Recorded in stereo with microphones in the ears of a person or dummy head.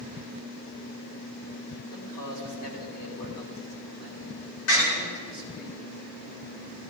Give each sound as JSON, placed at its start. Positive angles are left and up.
{"t": 1.9, "sound": "a man speaking", "side_deg": 55, "distance_m": 3.0}
{"t": 4.7, "sound": "a door slam", "side_deg": 75, "distance_m": 4.0}